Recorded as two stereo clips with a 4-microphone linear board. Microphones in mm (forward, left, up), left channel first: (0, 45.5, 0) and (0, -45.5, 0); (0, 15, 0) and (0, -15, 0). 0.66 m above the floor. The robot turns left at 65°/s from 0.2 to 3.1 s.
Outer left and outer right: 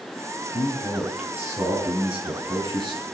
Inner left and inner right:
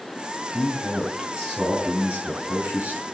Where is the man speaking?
30° left, 7 m; by 3.0 s 135° right, 7 m.